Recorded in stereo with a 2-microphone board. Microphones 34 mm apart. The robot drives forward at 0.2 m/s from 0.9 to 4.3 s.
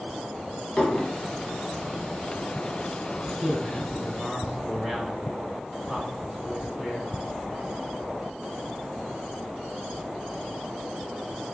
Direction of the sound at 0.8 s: 25° left (ahead or behind).